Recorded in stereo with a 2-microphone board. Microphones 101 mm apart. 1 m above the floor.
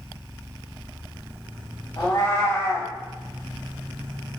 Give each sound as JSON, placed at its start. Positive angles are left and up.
{"t": 2.0, "sound": "a cat meowing", "side_deg": 50, "distance_m": 1.7}